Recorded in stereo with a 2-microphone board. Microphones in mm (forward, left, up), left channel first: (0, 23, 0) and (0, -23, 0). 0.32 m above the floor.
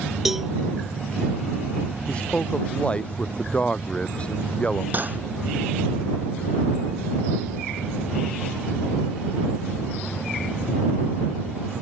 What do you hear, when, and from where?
0.2 s a cowbell: 5° right (ahead or behind)
2.1 s a man speaking: 25° left (ahead or behind)
4.9 s cutlery clinking: 40° right (ahead or behind)